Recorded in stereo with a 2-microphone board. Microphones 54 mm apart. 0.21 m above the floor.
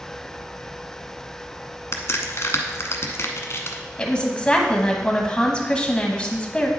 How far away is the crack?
About 1.0 m.